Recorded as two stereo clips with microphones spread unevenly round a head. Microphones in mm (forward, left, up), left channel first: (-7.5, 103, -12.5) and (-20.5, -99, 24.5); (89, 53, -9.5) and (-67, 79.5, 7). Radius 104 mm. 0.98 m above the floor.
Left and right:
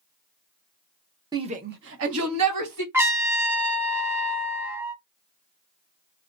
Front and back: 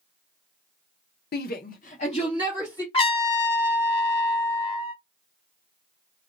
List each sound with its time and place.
1.3 s a shout: 15° right, 0.7 m; by 2.8 s 85° right, 1.2 m
2.9 s a trumpet: 45° right, 0.7 m